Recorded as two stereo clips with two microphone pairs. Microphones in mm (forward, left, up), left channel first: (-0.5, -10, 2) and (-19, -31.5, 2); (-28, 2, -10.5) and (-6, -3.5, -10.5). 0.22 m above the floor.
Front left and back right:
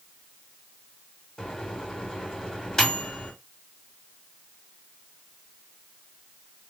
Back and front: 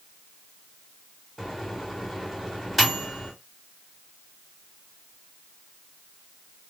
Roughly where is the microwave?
Left.